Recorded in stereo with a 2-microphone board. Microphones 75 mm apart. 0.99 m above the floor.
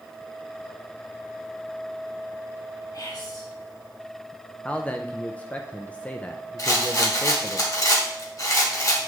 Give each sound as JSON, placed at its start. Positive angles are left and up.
{"t": 2.9, "sound": "whispering", "side_deg": 60, "distance_m": 1.9}
{"t": 4.7, "sound": "a man speaking", "side_deg": 20, "distance_m": 0.6}
{"t": 6.6, "sound": "a rattle", "side_deg": 50, "distance_m": 1.8}